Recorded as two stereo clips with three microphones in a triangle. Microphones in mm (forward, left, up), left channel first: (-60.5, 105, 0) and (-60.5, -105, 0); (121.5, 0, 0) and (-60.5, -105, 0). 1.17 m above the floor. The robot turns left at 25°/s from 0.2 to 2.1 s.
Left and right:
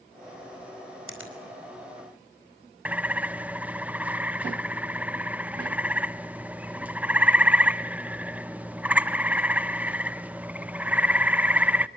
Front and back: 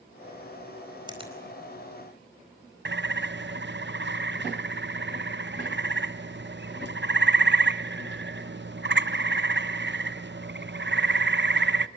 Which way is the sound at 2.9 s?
175° right.